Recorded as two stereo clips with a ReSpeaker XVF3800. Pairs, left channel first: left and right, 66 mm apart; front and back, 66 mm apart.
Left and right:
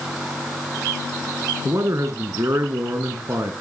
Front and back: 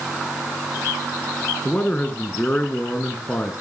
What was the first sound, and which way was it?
A man speaking, 65° right.